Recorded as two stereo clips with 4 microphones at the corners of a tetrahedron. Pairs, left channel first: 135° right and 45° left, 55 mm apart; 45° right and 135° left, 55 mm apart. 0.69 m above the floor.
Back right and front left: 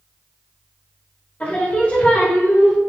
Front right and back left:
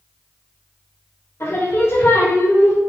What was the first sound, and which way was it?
Singing, 75° right.